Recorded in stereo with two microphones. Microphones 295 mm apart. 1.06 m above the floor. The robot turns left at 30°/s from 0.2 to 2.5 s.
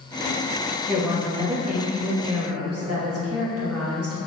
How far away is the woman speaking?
About 1.0 m.